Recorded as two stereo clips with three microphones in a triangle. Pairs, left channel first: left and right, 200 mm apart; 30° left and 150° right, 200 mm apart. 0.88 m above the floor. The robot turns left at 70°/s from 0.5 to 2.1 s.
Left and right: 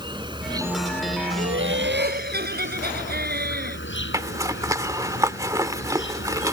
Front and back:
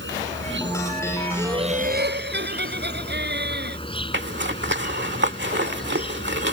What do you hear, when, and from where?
0.0 s an insect: 155° right; by 6.5 s 90° left
1.4 s laughter: 75° right; by 3.8 s 125° right
4.1 s a zipper: 165° right